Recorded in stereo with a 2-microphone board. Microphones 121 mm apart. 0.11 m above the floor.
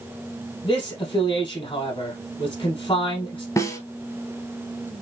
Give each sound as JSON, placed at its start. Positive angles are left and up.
{"t": 0.6, "sound": "a man speaking", "side_deg": 40, "distance_m": 3.0}
{"t": 3.6, "sound": "a snare drum", "side_deg": 25, "distance_m": 1.3}